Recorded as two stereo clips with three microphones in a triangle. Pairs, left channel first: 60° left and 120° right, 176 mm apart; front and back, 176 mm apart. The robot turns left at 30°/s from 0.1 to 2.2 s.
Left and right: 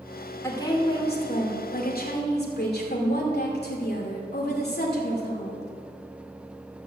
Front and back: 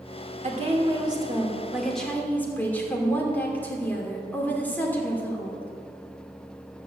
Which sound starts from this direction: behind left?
A woman speaking, at 0.4 s.